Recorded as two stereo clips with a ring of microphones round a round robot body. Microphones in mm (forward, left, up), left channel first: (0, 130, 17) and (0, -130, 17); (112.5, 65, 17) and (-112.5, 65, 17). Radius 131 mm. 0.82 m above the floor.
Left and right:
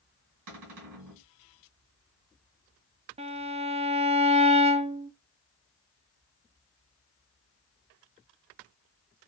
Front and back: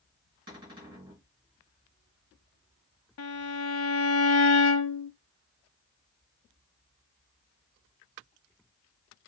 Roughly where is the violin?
Ahead right.